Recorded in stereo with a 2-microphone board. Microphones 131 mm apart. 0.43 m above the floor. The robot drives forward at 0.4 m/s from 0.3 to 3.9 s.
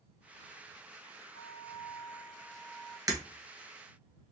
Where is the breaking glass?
25° right (ahead or behind), 1.1 m.